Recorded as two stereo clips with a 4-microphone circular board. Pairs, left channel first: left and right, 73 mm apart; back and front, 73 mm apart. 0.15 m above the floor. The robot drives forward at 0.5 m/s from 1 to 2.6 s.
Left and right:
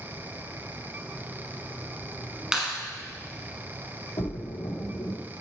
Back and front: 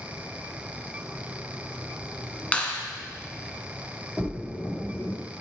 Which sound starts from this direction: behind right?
A clap, at 2.5 s.